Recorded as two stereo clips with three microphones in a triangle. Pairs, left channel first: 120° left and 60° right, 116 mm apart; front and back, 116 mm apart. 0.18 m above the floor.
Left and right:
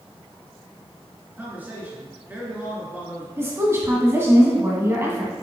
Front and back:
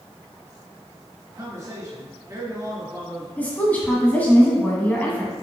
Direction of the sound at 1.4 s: 130° right.